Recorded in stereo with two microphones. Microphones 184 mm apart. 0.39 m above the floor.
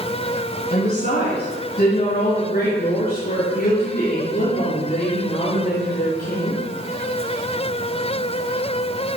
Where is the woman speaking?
60° left (ahead or behind), 3 m; by 6.6 s 50° left (ahead or behind), 7 m.